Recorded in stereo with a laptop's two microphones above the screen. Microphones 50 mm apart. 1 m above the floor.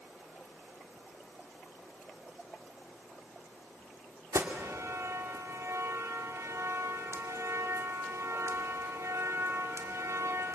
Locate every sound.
4.3 s an alarm: 70° right (ahead or behind), 2 m